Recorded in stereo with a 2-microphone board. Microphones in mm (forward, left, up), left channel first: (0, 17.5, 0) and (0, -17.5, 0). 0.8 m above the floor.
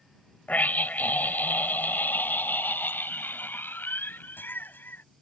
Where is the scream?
55° left (ahead or behind); by 5.0 s 80° left.